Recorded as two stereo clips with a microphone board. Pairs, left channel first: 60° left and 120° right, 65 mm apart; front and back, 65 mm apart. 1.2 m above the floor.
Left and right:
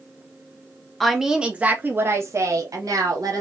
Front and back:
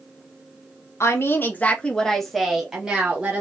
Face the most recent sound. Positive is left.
turn(degrees=-110)